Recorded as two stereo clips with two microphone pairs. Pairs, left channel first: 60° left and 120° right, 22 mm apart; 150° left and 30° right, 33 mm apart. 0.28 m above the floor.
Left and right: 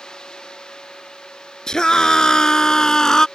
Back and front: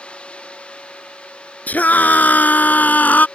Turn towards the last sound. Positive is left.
turn(degrees=125)